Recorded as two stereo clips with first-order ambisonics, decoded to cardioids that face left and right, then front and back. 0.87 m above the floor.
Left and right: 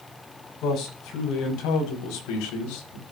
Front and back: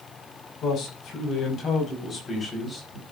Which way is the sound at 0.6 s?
45° left.